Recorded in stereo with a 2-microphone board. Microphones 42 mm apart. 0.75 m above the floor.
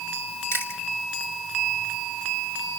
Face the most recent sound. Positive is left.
turn(degrees=65)  # may be behind; listen again after turning